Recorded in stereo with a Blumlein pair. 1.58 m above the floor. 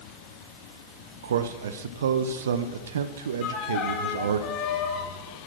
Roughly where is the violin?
Ahead left.